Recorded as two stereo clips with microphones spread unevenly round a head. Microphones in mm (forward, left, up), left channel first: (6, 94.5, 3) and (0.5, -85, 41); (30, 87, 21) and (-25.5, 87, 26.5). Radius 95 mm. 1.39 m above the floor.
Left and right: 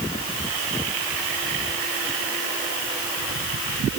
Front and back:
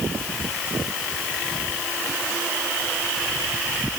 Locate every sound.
Only background noise.